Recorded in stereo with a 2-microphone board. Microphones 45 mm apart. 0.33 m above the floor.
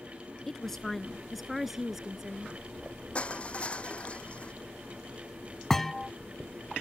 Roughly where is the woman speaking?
Centre.